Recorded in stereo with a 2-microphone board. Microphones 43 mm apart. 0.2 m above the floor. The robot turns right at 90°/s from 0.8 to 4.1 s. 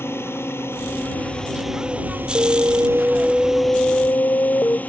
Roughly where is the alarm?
Right.